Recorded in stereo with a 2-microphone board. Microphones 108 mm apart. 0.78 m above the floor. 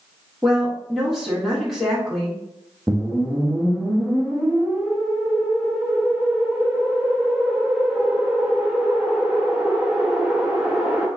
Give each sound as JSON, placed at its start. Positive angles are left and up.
{"t": 0.4, "sound": "a woman speaking", "side_deg": 0, "distance_m": 1.2}
{"t": 2.9, "sound": "a whoosh", "side_deg": -5, "distance_m": 0.8}